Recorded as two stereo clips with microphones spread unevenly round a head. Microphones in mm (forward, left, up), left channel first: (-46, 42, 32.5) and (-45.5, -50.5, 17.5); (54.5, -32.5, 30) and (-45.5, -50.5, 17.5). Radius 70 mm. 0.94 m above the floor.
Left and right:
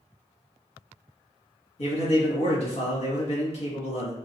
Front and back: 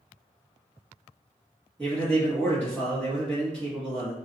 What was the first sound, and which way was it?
A man speaking, 90° left.